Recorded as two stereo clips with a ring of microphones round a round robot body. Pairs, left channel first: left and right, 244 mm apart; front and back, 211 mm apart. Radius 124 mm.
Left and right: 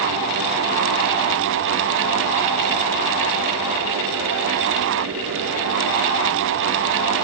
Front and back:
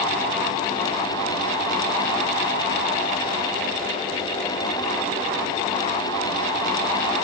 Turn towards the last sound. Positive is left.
No sound to turn to.